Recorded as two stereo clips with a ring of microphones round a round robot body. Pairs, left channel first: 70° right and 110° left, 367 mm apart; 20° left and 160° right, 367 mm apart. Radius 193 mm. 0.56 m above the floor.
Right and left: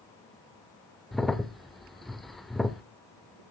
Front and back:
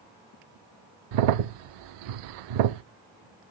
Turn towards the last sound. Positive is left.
turn(degrees=-155)